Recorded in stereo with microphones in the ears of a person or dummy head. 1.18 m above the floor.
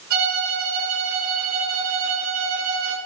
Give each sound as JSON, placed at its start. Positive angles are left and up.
{"t": 0.1, "sound": "a violin", "side_deg": -60, "distance_m": 4.0}